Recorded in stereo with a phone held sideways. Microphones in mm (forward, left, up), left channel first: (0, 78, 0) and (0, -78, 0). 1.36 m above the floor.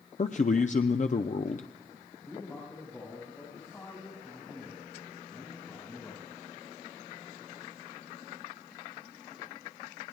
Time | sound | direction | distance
0.2 | a man speaking | 50° left (ahead or behind) | 0.6 m
2.2 | a man speaking | 20° left (ahead or behind) | 6.5 m